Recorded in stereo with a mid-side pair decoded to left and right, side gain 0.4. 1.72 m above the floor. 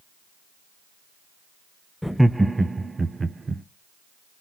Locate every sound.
2.0 s laughter: 5° left, 0.5 m; by 3.6 s 40° right, 1.2 m